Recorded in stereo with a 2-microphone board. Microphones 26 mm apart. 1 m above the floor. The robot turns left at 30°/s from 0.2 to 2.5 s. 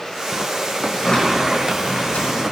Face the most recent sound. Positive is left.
turn(degrees=105)